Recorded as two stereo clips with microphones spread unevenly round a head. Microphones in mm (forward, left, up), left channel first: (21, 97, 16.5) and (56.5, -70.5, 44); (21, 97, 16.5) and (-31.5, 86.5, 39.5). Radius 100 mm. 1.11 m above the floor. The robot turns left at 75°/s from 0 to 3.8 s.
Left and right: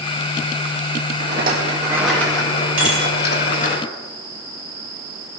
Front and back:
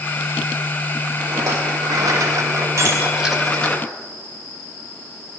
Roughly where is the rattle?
Right.